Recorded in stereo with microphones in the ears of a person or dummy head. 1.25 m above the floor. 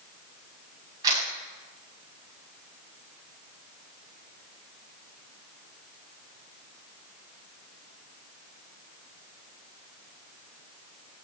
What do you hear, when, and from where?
1.0 s a camera shutter: 20° right (ahead or behind), 6.5 m